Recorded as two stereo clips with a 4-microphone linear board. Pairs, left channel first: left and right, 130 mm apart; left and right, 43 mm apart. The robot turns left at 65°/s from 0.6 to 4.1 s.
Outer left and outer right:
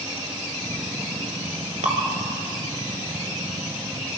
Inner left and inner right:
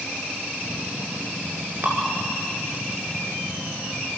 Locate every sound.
1.8 s dripping: 60° right (ahead or behind), 2.5 m; by 2.0 s 55° right (ahead or behind), 2.5 m